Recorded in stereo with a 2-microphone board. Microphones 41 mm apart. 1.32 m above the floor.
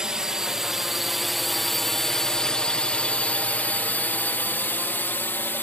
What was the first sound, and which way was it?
A drone, 20° right (ahead or behind).